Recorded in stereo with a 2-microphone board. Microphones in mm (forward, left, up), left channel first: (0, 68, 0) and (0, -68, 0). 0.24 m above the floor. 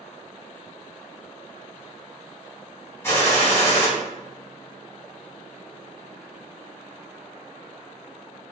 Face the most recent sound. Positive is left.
turn(degrees=20)  # may be behind; listen again after turning